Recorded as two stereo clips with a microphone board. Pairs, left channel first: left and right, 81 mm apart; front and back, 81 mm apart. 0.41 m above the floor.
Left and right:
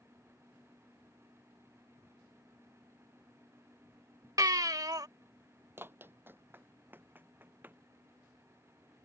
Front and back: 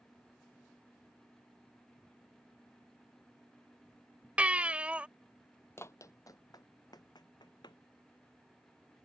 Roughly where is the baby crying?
Right.